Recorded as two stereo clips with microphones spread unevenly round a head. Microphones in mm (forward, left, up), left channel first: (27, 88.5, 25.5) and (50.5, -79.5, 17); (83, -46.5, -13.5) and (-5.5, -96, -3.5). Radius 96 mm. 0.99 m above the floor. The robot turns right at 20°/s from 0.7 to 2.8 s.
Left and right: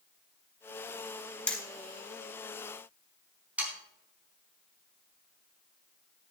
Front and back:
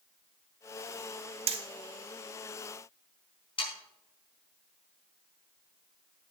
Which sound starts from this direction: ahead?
Sawing, at 3.6 s.